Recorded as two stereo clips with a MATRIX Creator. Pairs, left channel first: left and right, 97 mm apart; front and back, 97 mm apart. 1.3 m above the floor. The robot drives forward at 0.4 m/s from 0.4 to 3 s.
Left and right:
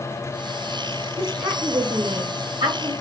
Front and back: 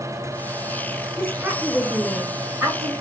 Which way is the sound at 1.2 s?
90° right.